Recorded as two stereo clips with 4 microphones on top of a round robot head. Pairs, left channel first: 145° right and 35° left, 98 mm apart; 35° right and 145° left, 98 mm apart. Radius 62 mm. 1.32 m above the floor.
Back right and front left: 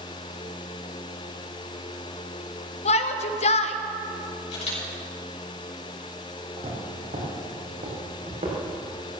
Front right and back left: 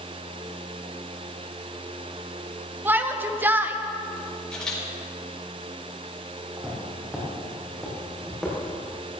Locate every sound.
2.9 s a shout: 145° right, 1.0 m
4.5 s a camera shutter: 115° right, 5.5 m
6.6 s footsteps: 65° left, 4.5 m; by 8.6 s 55° left, 6 m